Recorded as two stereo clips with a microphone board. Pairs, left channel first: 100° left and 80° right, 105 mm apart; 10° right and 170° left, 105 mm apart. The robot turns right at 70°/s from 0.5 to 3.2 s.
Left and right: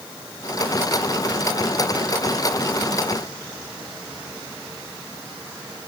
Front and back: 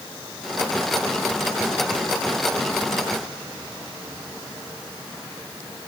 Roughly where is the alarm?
No alarm in this recording.